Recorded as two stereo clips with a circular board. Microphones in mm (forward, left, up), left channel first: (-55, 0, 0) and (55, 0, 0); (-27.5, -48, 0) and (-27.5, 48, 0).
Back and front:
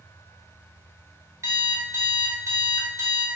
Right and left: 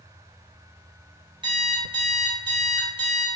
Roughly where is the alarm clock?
Ahead left.